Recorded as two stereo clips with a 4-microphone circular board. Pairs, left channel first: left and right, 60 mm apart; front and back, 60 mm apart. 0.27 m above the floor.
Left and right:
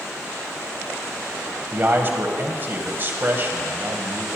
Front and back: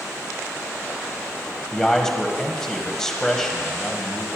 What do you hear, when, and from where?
1.7 s a man speaking: 75° right, 1.6 m